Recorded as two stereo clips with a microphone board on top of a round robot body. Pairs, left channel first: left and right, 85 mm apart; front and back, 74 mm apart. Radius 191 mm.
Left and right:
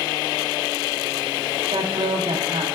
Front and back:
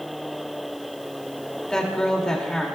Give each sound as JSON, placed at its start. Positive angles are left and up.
{"t": 1.7, "sound": "a woman speaking", "azimuth_deg": -80, "distance_m": 2.5}